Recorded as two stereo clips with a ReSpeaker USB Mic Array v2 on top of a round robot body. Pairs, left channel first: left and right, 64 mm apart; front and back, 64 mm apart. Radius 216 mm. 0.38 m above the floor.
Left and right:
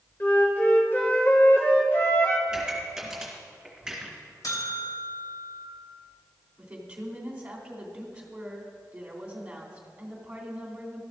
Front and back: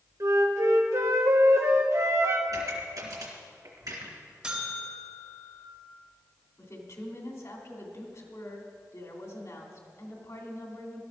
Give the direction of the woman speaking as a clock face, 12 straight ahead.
1 o'clock.